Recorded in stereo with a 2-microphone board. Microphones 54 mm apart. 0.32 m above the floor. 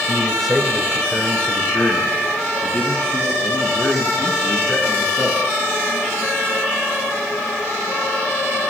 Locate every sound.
0.1 s a man speaking: 10° right (ahead or behind), 1.0 m; by 5.4 s 30° left (ahead or behind), 4 m